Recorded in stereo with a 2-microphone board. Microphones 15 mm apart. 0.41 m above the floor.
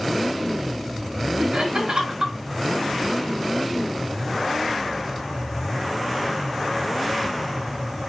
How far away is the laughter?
About 4.5 m.